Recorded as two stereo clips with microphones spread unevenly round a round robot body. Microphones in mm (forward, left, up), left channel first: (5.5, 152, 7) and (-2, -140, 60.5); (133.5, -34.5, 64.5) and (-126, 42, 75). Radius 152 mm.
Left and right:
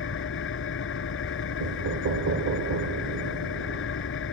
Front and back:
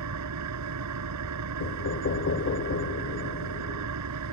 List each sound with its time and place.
0.0 s an engine running: 140° left
1.6 s knocking: 50° right